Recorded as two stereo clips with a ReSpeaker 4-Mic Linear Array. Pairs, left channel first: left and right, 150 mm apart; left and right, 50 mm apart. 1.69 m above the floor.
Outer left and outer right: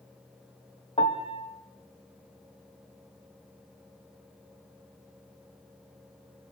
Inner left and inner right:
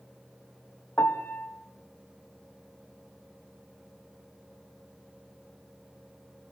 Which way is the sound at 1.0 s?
50° left (ahead or behind).